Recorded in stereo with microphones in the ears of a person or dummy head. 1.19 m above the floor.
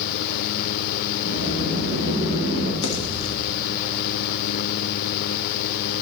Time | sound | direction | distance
1.2 | a sliding door | 60° left (ahead or behind) | 4 m
2.8 | a pop | 80° left | 1.2 m